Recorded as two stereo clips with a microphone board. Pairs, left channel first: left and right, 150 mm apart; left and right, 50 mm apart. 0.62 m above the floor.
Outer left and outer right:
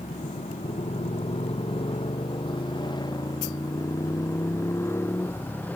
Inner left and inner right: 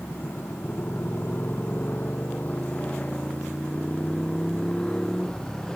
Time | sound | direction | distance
0.0 | a motorcycle | 50° left (ahead or behind) | ?